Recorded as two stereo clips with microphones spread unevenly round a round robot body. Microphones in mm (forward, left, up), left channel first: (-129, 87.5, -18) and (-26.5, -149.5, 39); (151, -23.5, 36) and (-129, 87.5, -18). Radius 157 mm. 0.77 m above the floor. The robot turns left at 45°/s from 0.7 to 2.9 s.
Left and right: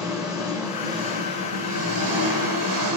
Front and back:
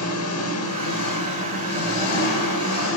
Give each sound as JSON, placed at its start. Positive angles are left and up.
{"t": 0.0, "sound": "an engine running", "azimuth_deg": 20, "distance_m": 1.8}